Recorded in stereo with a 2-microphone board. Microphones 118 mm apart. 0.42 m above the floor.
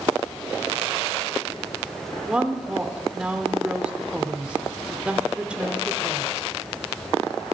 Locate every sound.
2.3 s a woman speaking: 10° right (ahead or behind), 0.8 m